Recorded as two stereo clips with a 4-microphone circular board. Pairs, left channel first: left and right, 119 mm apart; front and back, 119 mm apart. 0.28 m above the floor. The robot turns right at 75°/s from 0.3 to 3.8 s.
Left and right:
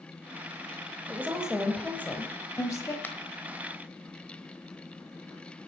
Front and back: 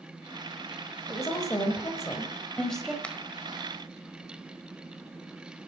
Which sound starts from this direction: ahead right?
A woman speaking, at 1.1 s.